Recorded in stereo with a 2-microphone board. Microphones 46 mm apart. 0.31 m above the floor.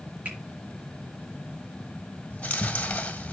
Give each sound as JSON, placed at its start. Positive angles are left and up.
{"t": 0.2, "sound": "a finger snap", "side_deg": -30, "distance_m": 4.5}
{"t": 2.3, "sound": "chewing", "side_deg": 30, "distance_m": 1.3}